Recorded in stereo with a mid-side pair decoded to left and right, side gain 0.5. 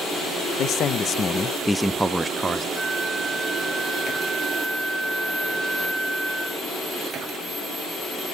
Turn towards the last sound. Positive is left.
turn(degrees=10)